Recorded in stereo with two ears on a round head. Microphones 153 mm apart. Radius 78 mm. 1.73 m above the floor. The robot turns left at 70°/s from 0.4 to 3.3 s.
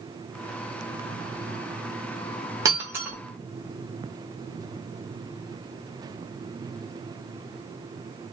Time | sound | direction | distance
2.6 | breaking glass | 20° right (ahead or behind) | 1.0 m